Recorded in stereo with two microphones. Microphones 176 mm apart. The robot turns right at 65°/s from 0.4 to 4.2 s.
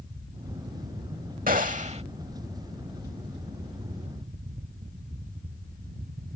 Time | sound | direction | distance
1.5 | a gunshot | 85° right | ?